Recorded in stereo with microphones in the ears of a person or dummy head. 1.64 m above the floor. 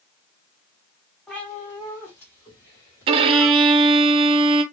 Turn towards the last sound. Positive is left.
turn(degrees=-30)  # may be behind; listen again after turning